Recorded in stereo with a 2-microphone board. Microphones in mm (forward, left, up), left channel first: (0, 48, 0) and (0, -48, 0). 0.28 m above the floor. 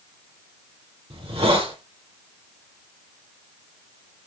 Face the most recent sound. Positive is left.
turn(degrees=-75)  # may be behind; listen again after turning